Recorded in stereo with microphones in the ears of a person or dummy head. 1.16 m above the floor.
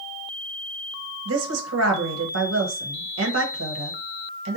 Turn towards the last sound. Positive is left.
turn(degrees=-80)